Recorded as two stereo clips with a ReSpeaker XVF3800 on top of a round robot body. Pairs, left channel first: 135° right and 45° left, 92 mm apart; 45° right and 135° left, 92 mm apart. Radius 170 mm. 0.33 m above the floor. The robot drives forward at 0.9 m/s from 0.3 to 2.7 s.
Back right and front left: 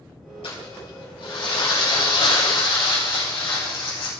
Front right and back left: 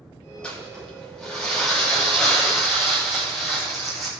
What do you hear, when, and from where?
0.4 s crumpling: 125° right, 6 m; by 4.1 s 135° right, 7.5 m